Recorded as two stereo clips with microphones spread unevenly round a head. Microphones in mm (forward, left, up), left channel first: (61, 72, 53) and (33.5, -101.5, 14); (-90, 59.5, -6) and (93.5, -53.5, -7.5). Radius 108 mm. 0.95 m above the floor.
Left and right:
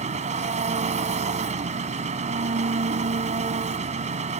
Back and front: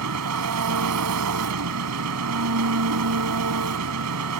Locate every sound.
0.0 s an engine running: 45° right